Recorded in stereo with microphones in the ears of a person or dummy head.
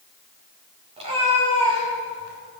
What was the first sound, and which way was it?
A cat meowing, 30° right (ahead or behind).